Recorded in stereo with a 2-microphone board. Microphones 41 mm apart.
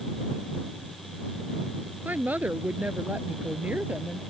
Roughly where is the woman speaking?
Right.